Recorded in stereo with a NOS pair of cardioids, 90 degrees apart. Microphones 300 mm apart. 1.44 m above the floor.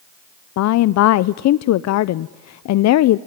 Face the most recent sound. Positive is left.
turn(degrees=65)